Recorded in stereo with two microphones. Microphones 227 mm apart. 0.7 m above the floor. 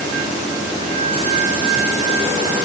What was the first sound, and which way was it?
Only background noise.